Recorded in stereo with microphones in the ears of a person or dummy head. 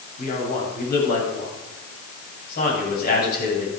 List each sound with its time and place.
0.2 s a man speaking: 50° left (ahead or behind), 8.5 m